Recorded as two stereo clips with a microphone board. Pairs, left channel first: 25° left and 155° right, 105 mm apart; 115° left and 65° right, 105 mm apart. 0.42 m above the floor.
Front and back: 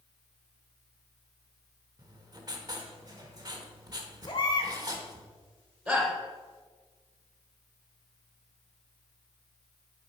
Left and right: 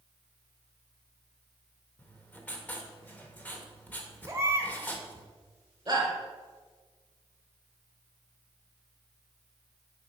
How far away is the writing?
About 1.0 m.